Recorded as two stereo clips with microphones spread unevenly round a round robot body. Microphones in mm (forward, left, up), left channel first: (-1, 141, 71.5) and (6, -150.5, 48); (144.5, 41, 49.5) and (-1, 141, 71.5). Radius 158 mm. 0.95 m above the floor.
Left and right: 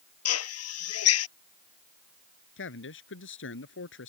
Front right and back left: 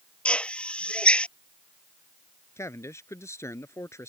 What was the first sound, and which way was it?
A drill, 50° left.